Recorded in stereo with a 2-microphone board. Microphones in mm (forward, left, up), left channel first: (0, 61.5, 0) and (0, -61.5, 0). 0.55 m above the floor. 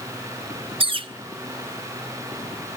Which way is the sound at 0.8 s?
45° right (ahead or behind).